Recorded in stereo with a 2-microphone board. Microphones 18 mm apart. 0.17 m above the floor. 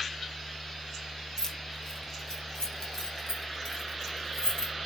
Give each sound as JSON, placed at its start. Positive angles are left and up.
{"t": 1.4, "sound": "keys jangling", "side_deg": 30, "distance_m": 1.3}